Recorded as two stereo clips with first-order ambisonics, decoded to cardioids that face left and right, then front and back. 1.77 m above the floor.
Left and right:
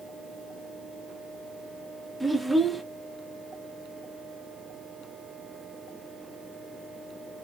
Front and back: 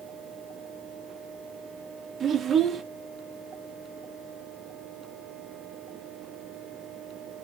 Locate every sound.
2.2 s a child speaking: 170° right, 0.6 m